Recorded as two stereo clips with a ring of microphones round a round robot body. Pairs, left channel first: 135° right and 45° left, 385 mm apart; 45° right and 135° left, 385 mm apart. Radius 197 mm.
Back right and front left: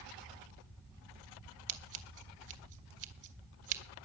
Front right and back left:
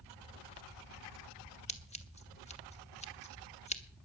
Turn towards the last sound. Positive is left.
turn(degrees=25)